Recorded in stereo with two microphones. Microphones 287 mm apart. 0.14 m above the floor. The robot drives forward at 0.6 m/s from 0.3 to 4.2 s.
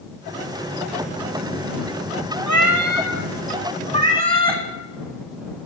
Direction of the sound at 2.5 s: 85° right.